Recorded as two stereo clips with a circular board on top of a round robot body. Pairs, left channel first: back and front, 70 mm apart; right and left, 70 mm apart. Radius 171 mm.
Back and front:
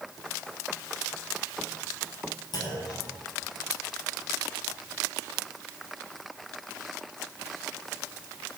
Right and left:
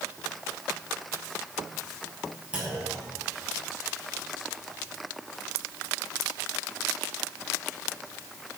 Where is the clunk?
165° left, 7 m.